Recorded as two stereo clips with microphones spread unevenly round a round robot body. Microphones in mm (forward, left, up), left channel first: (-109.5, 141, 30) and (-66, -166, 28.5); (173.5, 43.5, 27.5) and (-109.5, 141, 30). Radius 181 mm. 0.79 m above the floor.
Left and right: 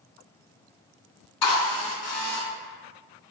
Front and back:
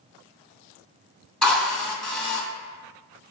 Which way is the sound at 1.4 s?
70° left.